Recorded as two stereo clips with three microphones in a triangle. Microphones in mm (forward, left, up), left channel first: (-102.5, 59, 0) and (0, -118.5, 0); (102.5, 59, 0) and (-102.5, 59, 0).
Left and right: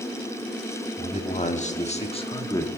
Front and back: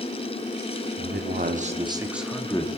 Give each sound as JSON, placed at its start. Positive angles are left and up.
{"t": 1.0, "sound": "a man speaking", "azimuth_deg": 170, "distance_m": 2.0}